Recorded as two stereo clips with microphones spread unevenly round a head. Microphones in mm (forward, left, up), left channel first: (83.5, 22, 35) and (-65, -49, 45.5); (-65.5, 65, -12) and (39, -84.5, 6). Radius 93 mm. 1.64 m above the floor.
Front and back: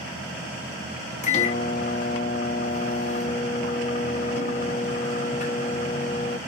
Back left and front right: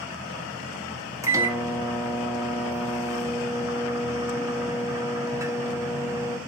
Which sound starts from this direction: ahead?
A microwave, at 1.2 s.